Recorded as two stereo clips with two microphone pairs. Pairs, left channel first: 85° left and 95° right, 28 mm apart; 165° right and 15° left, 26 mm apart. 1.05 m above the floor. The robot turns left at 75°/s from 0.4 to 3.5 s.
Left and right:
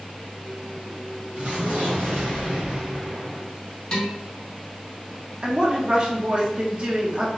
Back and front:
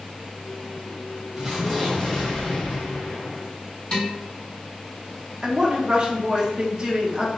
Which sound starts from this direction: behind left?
Dishes clattering, at 3.9 s.